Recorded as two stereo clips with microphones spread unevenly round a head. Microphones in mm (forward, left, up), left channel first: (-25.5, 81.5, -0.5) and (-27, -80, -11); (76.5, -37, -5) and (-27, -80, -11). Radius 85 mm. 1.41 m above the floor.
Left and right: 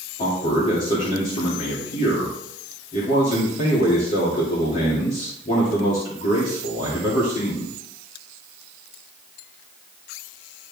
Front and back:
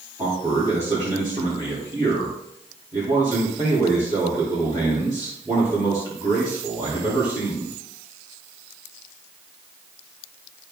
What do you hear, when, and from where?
0.2 s a man speaking: 135° left, 3 m